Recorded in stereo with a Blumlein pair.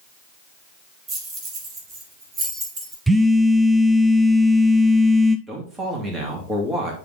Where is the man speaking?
10° right, 2.5 m.